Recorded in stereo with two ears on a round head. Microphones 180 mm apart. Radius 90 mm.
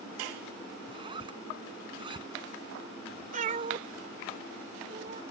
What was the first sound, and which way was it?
A zipper, 25° right (ahead or behind).